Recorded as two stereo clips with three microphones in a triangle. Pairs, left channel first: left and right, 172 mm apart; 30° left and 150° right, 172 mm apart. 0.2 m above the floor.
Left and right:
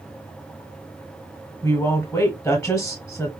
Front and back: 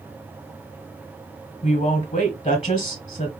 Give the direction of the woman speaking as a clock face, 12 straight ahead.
11 o'clock.